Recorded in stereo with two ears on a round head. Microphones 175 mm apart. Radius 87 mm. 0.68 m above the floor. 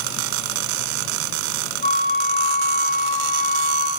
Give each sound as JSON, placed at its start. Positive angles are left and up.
{"t": 1.8, "sound": "a flute", "side_deg": -50, "distance_m": 4.0}